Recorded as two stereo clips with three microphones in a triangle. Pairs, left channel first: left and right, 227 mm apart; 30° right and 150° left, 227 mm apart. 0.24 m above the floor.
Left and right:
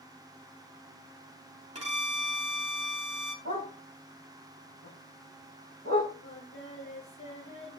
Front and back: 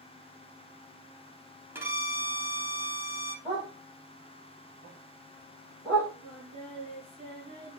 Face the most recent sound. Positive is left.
turn(degrees=90)